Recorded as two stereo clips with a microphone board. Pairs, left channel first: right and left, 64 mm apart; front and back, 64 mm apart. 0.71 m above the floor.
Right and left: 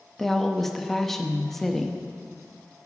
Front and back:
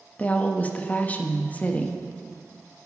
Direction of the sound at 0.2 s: 10° right.